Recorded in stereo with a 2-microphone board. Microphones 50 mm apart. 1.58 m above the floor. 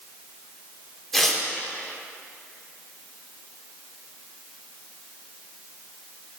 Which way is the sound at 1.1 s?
5° left (ahead or behind).